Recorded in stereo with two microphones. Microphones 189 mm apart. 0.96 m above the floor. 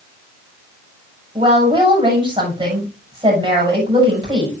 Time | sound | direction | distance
1.4 | a woman speaking | 25° right (ahead or behind) | 7 m